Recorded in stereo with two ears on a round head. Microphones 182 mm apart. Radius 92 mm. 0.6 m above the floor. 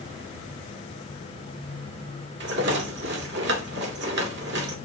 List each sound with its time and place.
2.4 s a rattle: 55° right (ahead or behind), 2 m